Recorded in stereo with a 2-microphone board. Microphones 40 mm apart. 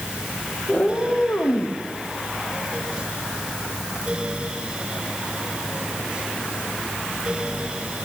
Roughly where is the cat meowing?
Centre.